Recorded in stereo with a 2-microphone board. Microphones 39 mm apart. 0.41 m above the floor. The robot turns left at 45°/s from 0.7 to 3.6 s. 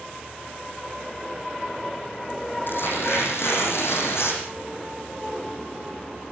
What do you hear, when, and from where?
2.7 s tearing paper: 125° left, 8 m; by 4.4 s 80° left, 8 m